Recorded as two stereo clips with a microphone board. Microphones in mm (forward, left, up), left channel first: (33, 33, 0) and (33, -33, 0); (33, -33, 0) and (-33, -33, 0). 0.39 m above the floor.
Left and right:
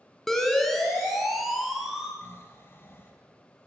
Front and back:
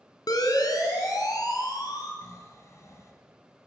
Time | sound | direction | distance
0.3 | a siren | 5° left | 3.5 m
2.2 | snoring | 35° left | 3.5 m